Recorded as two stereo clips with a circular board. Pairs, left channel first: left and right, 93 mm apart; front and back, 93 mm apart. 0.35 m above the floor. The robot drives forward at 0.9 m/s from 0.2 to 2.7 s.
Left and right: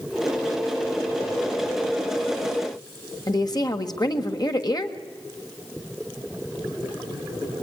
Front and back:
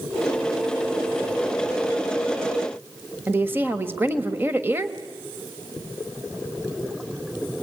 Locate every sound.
3.3 s a woman speaking: 120° left, 1.3 m